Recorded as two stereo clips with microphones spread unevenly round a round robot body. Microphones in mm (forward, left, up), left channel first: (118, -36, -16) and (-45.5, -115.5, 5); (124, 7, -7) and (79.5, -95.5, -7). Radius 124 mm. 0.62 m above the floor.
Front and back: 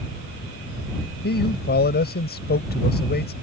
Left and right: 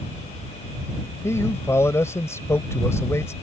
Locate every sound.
1.2 s a man speaking: straight ahead